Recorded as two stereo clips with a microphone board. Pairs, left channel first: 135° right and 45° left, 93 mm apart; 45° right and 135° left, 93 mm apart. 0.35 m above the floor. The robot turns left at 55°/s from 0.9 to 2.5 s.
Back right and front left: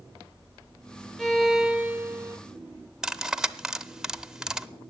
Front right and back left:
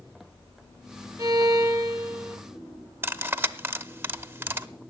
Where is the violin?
135° left, 0.9 m; by 2.4 s 70° left, 0.9 m.